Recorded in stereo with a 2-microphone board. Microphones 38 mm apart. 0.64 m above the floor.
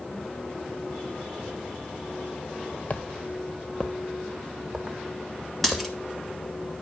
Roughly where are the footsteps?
Left.